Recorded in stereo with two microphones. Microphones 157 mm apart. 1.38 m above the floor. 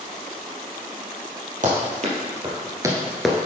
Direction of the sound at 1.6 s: 55° right (ahead or behind).